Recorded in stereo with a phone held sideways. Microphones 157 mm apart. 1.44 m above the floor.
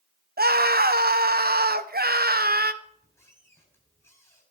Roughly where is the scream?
Right.